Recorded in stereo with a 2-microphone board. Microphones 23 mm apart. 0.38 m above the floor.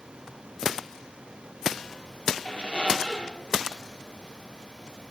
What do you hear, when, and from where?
2.5 s a squeak: 55° left (ahead or behind), 2.5 m